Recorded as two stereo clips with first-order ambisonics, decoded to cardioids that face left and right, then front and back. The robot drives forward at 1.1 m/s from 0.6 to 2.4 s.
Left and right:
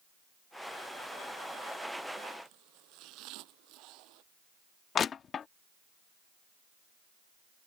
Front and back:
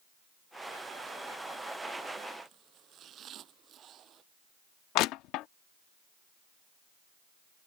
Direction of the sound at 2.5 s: 125° right.